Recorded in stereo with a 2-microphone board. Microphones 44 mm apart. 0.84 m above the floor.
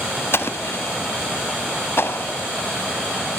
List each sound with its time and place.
0.3 s an explosion: 60° left (ahead or behind), 1.2 m